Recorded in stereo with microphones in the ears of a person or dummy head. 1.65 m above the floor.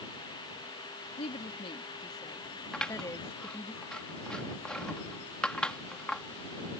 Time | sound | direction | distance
1.2 | a woman speaking | 30° left (ahead or behind) | ?
2.7 | scissors | 10° left (ahead or behind) | ?